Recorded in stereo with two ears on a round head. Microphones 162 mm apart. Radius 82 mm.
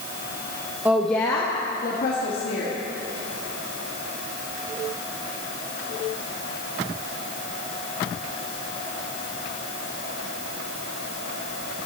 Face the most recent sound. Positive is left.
turn(degrees=60)  # may be behind; listen again after turning